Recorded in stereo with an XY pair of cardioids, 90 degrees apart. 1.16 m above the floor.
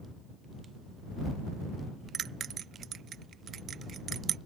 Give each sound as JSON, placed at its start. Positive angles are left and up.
{"t": 2.1, "sound": "a bell", "azimuth_deg": -70}